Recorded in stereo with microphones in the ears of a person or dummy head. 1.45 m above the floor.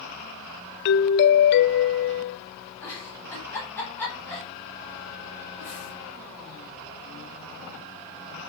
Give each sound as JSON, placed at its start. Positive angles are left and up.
{"t": 0.8, "sound": "a doorbell", "side_deg": 65, "distance_m": 0.7}
{"t": 2.8, "sound": "a giggle", "side_deg": 10, "distance_m": 5.5}